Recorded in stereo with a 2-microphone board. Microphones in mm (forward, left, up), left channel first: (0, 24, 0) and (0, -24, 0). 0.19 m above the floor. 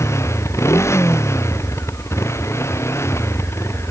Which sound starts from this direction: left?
A motorcycle, at 0.0 s.